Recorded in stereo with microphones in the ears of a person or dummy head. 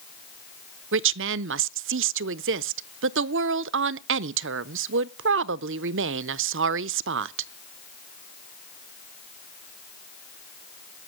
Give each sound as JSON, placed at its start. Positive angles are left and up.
{"t": 0.9, "sound": "a woman speaking", "side_deg": -55, "distance_m": 0.5}